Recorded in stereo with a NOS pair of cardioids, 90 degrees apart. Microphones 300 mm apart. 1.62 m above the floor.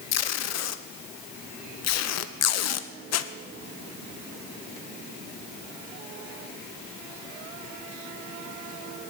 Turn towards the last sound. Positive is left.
turn(degrees=60)